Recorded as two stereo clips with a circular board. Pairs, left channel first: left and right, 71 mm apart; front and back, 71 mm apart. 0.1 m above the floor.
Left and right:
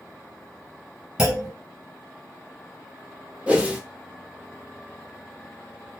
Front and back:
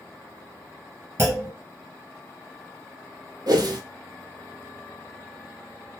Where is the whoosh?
165° right, 0.6 m.